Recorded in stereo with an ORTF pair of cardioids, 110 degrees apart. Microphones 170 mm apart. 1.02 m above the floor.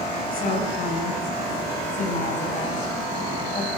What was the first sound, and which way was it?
A woman speaking, 55° left.